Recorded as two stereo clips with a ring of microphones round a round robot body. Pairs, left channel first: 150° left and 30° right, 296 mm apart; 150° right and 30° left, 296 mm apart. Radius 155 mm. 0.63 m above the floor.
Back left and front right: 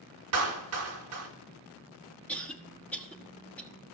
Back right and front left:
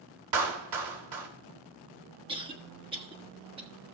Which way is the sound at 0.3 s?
10° left.